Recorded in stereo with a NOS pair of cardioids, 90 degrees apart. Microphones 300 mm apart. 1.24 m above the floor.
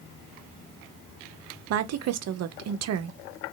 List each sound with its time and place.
1.7 s a woman speaking: 55° right, 0.7 m